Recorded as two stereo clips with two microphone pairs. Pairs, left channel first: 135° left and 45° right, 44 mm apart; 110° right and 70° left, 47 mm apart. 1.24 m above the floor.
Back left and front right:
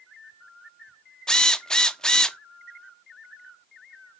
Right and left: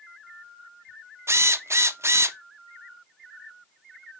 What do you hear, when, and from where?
1.3 s a drill: 70° left, 0.5 m